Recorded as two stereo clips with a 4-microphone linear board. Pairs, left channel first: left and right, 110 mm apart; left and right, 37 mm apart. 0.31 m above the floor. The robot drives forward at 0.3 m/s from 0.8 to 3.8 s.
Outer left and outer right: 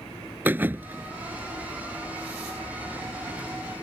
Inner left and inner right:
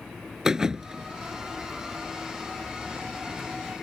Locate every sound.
0.5 s a thud: 20° right (ahead or behind); by 1.1 s 15° right (ahead or behind)